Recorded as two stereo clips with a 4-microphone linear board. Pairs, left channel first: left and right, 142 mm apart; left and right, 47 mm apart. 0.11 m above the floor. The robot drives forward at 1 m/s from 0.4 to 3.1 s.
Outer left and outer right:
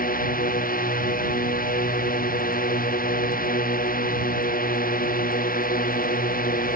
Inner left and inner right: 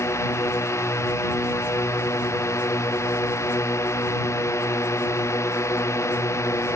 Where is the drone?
80° left; by 6.8 s 85° left.